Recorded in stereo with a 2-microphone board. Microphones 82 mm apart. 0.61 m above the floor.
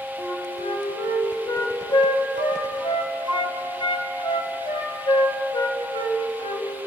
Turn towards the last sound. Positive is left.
turn(degrees=70)  # may be behind; listen again after turning